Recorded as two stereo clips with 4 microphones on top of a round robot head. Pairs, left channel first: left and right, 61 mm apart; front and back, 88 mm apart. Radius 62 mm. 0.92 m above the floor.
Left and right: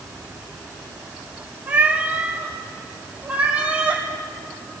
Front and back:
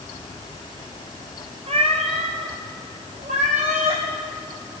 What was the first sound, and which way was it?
A cat meowing, 150° right.